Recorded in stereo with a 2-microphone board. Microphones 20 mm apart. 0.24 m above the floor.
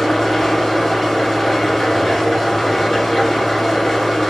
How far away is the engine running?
About 1.2 m.